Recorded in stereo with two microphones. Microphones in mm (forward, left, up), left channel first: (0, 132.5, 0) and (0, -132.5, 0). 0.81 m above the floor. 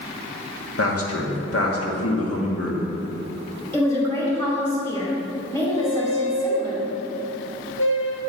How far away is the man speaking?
About 1.4 m.